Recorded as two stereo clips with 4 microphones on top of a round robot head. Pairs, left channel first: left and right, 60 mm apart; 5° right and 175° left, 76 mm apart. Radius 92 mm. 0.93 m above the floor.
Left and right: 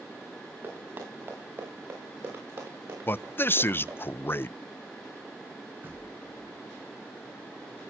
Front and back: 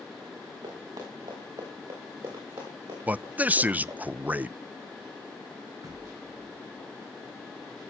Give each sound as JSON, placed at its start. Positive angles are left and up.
{"t": 0.6, "sound": "running footsteps", "azimuth_deg": -140, "distance_m": 5.5}
{"t": 3.1, "sound": "a man speaking", "azimuth_deg": 120, "distance_m": 0.6}
{"t": 5.8, "sound": "knocking", "azimuth_deg": -140, "distance_m": 5.5}